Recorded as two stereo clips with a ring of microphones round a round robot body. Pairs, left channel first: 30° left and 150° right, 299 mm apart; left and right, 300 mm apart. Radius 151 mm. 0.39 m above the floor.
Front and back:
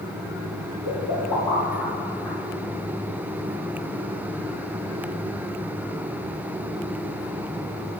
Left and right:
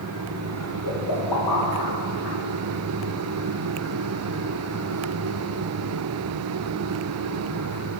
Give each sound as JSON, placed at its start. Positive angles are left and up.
{"t": 0.8, "sound": "a pop", "azimuth_deg": 65, "distance_m": 4.0}